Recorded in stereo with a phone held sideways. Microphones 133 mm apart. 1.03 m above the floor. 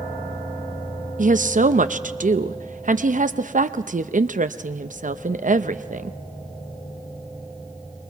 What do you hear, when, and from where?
1.2 s a woman speaking: 80° right, 0.6 m